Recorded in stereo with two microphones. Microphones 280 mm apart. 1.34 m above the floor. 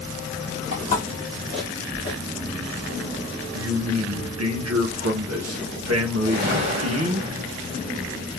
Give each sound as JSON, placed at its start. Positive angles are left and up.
{"t": 0.7, "sound": "footsteps", "side_deg": -35, "distance_m": 1.6}
{"t": 3.5, "sound": "a man speaking", "side_deg": -60, "distance_m": 0.6}
{"t": 6.2, "sound": "a whoosh", "side_deg": -35, "distance_m": 1.3}